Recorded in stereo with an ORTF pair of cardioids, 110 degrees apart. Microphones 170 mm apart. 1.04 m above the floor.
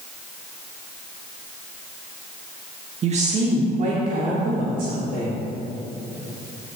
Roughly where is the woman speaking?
Ahead right.